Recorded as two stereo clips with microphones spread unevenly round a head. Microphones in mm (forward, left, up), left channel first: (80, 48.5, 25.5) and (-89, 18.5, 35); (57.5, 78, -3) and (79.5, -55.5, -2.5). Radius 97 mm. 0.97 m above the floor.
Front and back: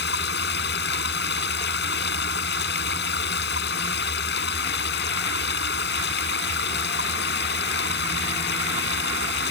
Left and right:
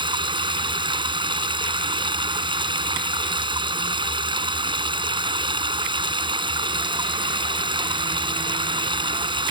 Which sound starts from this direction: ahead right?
Running water, at 0.0 s.